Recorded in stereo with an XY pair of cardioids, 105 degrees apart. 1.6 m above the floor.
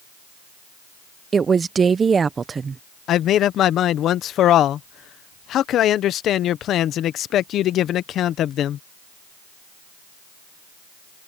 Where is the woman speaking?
35° right.